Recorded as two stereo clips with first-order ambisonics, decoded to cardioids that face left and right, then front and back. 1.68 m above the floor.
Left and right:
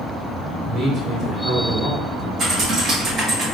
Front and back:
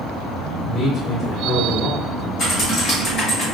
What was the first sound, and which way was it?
A man speaking, 50° right.